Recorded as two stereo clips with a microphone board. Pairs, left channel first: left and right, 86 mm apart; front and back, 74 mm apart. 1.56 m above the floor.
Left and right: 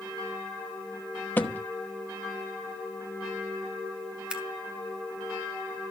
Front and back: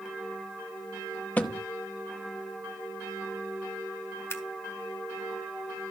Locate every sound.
1.4 s a thud: 45° left, 1.0 m
4.3 s scissors: 20° right, 1.5 m